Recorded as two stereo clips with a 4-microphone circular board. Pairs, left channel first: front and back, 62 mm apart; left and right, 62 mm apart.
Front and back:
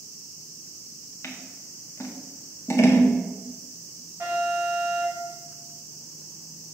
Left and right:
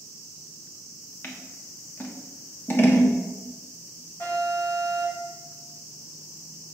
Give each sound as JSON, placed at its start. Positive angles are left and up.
{"t": 1.2, "sound": "scissors", "azimuth_deg": 35, "distance_m": 1.1}
{"t": 4.2, "sound": "an alarm", "azimuth_deg": 125, "distance_m": 3.5}